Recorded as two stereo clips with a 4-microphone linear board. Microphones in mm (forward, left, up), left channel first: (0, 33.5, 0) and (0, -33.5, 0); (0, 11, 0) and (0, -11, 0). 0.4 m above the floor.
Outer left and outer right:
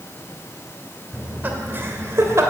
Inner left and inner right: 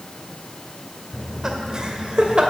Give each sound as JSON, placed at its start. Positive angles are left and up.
{"t": 1.1, "sound": "laughter", "side_deg": -20, "distance_m": 1.8}